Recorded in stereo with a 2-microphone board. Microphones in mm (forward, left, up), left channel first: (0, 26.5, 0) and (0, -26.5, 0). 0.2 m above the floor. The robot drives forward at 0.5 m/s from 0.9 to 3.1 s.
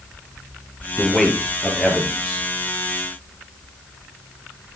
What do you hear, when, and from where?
1.0 s a man speaking: 5° left (ahead or behind), 3.5 m